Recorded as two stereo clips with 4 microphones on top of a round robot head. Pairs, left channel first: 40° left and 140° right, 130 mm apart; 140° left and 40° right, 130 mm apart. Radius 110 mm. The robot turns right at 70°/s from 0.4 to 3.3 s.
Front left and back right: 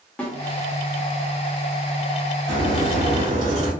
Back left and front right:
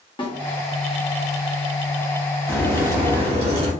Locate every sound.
0.2 s a snare drum: 115° left, 1.2 m
2.5 s a crack: 135° right, 1.4 m; by 3.7 s 80° right, 1.4 m